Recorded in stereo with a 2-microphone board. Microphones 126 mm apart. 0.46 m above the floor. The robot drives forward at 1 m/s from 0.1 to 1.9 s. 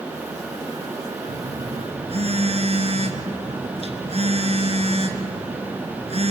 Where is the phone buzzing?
80° right, 1.1 m; by 6.3 s 55° right (ahead or behind), 1.3 m.